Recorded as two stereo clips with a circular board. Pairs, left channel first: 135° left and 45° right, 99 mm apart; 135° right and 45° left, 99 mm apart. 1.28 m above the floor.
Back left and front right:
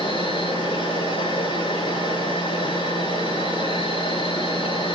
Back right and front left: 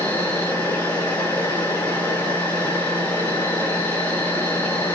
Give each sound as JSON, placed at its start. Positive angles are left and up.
{"t": 0.0, "sound": "an insect", "azimuth_deg": 155, "distance_m": 9.0}